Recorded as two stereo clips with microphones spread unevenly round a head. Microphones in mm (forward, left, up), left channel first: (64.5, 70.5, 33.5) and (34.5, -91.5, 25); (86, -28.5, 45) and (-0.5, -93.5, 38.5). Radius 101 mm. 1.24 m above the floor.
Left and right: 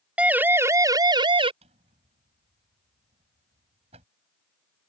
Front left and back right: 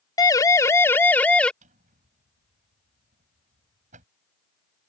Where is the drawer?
165° right.